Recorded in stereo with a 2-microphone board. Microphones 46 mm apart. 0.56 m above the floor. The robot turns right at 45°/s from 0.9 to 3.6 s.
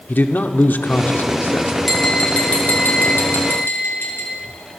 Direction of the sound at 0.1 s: 65° left.